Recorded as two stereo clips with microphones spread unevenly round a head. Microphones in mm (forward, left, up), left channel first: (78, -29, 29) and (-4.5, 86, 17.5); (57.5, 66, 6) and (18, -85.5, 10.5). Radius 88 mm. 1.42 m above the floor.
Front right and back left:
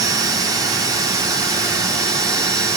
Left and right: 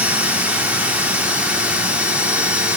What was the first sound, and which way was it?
A machine running, 175° right.